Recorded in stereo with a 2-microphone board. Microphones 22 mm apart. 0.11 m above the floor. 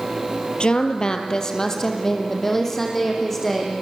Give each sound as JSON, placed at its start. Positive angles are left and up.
{"t": 0.6, "sound": "a woman speaking", "side_deg": 45, "distance_m": 2.0}